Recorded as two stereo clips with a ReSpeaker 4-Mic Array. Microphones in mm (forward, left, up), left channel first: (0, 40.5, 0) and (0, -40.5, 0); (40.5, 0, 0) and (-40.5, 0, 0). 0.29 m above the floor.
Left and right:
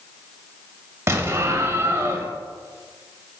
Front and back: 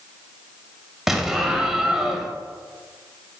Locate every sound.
1.1 s an explosion: 100° right, 0.7 m